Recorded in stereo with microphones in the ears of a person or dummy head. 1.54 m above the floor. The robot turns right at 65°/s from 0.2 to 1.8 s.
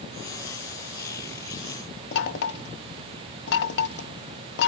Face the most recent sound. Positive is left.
turn(degrees=65)  # may be behind; listen again after turning